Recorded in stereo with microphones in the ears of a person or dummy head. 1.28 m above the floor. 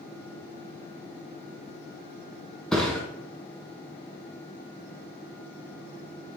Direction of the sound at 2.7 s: Centre (ahead or behind).